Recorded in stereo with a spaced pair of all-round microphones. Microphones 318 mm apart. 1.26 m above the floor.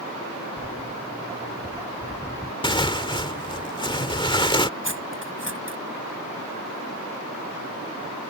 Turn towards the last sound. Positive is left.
turn(degrees=-40)  # may be behind; listen again after turning